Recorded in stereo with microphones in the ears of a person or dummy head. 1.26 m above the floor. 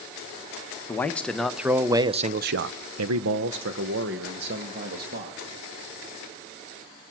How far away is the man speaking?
About 1.2 m.